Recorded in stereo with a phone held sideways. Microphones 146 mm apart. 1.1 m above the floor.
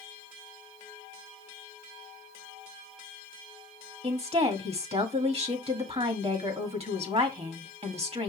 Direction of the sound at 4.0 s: 45° right (ahead or behind).